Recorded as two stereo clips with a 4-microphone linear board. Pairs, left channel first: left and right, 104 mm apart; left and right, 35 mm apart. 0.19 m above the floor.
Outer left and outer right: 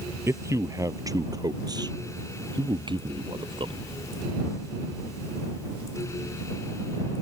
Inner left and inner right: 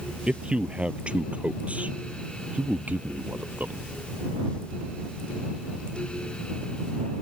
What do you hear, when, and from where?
0.3 s a man speaking: 25° right (ahead or behind); by 3.9 s 50° right (ahead or behind)